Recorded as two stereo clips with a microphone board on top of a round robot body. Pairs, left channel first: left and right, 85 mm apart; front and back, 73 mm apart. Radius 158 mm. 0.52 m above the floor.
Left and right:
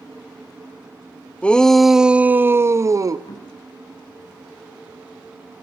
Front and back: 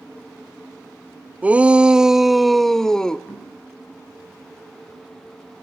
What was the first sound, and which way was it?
A shout, 145° left.